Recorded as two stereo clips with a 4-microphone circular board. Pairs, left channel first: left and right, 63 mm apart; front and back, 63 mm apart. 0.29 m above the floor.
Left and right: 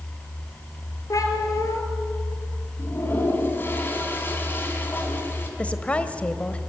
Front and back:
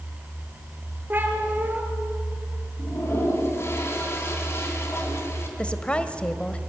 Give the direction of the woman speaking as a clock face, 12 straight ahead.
10 o'clock.